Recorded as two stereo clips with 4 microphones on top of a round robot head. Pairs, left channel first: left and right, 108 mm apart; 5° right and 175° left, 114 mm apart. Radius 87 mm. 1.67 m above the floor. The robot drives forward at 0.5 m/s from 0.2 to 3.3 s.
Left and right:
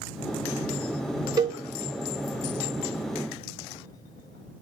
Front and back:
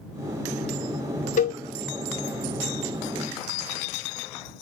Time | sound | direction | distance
1.4 | a cowbell | 25° right | 0.9 m